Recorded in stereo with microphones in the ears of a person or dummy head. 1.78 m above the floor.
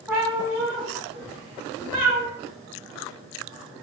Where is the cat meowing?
10° right (ahead or behind), 1.3 m; by 2.2 s 50° right (ahead or behind), 1.3 m.